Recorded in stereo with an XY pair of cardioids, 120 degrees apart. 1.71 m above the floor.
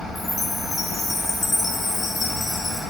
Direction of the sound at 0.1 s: 20° left.